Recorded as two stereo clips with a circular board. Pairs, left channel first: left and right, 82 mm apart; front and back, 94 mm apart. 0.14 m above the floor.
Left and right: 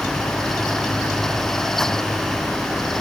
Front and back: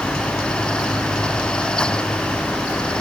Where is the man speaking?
I don't hear a man speaking.